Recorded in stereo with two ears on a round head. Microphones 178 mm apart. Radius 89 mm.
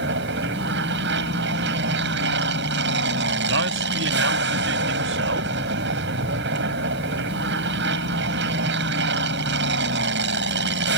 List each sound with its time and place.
0.0 s an aircraft: 60° right (ahead or behind)
3.5 s a man speaking: 65° right (ahead or behind)